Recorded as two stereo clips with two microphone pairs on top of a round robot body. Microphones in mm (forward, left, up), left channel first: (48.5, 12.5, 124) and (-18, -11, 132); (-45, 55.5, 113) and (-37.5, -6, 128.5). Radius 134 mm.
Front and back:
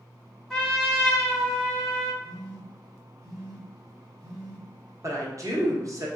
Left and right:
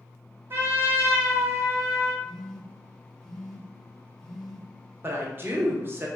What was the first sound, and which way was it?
A trumpet, 45° right.